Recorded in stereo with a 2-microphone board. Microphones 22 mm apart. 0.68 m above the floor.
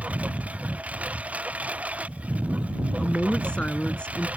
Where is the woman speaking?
50° left (ahead or behind).